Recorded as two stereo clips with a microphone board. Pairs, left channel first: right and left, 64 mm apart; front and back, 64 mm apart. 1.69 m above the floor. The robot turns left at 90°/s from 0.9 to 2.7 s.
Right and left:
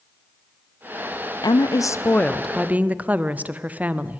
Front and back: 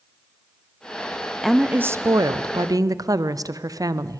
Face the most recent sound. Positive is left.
turn(degrees=155)